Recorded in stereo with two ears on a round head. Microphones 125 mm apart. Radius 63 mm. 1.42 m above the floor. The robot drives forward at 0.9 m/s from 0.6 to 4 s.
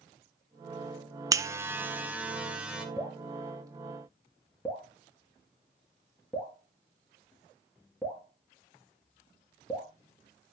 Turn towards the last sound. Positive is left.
turn(degrees=0)  # may be behind; listen again after turning